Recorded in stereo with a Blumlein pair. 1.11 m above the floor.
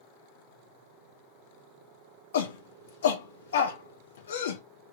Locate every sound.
2.3 s a shout: 60° left, 1.0 m